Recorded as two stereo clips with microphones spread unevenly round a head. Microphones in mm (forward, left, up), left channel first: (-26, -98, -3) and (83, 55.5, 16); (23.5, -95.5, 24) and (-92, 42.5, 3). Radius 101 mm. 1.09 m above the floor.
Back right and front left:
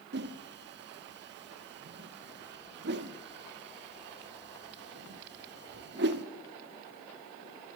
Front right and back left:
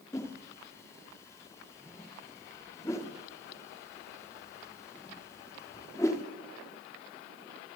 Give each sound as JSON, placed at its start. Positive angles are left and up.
{"t": 0.1, "sound": "a whoosh", "azimuth_deg": 25, "distance_m": 1.4}